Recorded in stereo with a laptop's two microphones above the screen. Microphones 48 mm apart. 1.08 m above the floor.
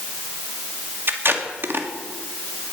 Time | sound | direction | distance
1.1 | tape being pulled | 50° right (ahead or behind) | 1.7 m